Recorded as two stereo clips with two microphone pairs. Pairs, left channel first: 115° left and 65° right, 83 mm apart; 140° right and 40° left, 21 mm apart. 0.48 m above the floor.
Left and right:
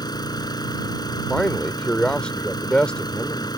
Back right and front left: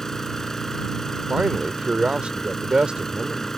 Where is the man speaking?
45° left.